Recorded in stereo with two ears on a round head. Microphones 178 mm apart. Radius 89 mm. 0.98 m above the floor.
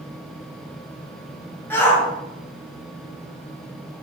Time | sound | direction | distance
1.7 | a shout | 10° left (ahead or behind) | 0.9 m